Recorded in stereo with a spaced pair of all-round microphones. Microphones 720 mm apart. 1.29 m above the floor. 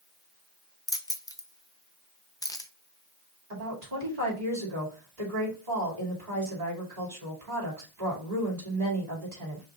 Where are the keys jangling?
5° left (ahead or behind), 0.5 m.